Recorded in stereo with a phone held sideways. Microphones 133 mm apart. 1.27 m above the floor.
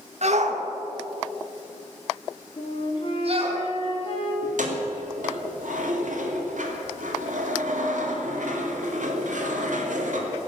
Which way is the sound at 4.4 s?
75° right (ahead or behind).